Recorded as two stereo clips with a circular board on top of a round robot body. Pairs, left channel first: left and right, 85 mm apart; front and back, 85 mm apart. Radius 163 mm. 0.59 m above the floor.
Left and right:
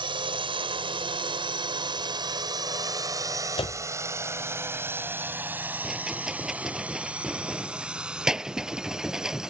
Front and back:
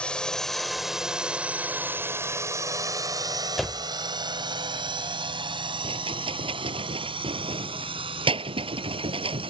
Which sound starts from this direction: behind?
A rattle, at 5.8 s.